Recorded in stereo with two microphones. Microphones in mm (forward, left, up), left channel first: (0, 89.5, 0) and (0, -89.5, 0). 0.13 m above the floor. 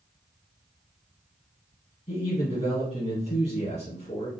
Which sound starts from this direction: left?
A man speaking, at 2.1 s.